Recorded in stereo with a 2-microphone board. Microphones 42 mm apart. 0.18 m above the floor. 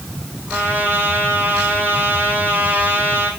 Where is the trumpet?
45° right (ahead or behind), 7 m.